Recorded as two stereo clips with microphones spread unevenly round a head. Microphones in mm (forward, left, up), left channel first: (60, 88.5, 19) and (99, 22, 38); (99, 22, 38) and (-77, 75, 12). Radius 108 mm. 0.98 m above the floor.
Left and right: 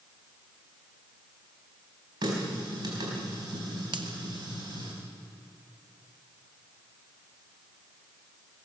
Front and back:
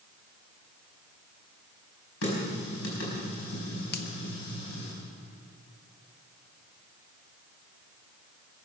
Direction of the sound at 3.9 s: 55° right.